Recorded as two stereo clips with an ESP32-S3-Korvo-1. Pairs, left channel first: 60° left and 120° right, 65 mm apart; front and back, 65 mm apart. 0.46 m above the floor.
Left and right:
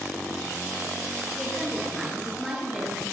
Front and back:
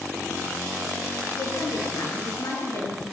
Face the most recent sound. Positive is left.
turn(degrees=-35)